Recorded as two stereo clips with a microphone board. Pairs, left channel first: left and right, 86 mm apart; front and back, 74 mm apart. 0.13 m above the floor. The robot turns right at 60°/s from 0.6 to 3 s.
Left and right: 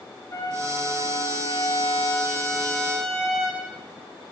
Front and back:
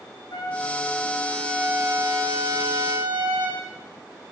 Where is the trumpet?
30° left, 7 m; by 3.6 s 175° left, 7 m.